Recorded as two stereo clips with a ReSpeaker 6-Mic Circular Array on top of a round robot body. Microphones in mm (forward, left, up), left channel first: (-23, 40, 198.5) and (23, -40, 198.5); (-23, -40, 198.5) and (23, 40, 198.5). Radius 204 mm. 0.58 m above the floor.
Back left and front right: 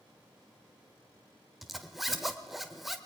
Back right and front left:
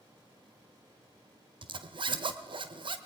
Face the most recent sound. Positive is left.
turn(degrees=30)